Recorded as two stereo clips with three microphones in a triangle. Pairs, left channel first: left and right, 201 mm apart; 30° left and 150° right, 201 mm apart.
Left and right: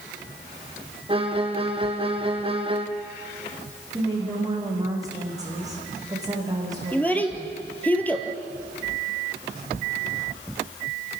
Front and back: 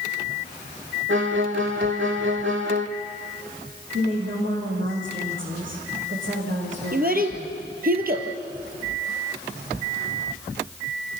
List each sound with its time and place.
1.1 s a violin: 150° right, 1.4 m
3.9 s a woman speaking: 160° right, 7.5 m
6.9 s a child speaking: 170° left, 2.5 m